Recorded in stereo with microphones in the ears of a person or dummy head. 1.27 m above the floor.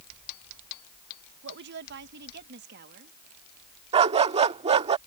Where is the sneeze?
I don't hear a sneeze.